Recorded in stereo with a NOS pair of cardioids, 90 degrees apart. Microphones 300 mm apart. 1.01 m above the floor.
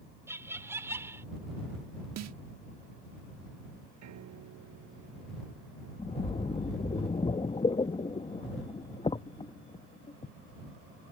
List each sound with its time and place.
0.3 s laughter: 10° right
2.2 s a snare drum: 60° right
4.0 s a piano: 70° right
6.0 s a splash: 20° left